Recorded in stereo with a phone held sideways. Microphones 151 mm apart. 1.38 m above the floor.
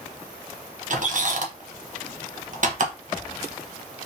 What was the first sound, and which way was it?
A squeak, 55° right (ahead or behind).